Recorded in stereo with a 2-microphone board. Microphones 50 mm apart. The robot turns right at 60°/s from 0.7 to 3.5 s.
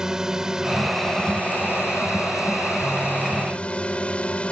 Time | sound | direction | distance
0.0 | a drone | 15° right | ?